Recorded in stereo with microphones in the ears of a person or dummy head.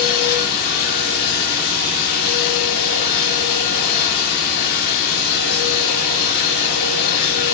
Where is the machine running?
50° left (ahead or behind), 2 m.